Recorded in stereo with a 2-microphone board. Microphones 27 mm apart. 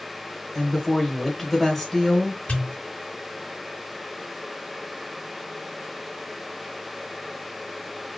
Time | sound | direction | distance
0.6 | a woman speaking | 10° left (ahead or behind) | 1.3 m
2.5 | a pop | 55° left (ahead or behind) | 2.5 m